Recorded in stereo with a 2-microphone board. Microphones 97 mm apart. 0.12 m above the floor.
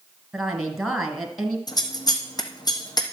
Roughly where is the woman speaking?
Centre.